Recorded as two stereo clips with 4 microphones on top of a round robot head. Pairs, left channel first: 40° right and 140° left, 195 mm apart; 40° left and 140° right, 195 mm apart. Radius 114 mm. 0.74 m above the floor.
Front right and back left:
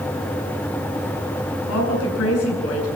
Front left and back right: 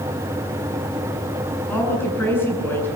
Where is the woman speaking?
40° right, 8 m.